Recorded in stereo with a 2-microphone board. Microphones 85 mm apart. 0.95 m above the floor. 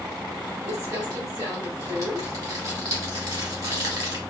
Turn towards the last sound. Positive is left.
turn(degrees=-40)  # may be behind; listen again after turning